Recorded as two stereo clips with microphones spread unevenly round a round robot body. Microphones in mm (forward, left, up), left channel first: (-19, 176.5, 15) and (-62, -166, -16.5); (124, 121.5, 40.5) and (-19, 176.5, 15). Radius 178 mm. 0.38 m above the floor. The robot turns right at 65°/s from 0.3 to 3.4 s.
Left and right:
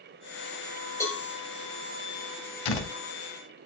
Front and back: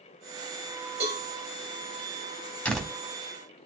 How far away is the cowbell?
About 5.5 m.